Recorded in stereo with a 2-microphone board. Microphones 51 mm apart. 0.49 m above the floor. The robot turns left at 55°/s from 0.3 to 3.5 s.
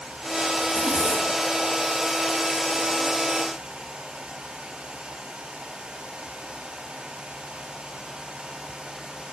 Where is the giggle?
I don't hear a giggle.